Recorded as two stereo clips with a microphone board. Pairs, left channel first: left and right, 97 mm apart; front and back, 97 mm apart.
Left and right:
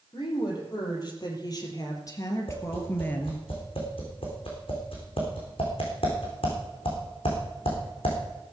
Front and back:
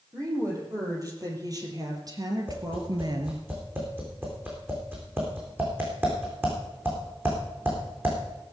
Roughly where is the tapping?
Left.